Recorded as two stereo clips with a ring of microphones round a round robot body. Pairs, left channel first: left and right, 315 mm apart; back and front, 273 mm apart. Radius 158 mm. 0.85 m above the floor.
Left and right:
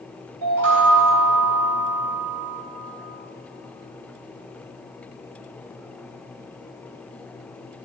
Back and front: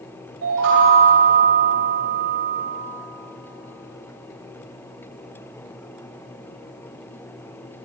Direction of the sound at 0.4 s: 50° right.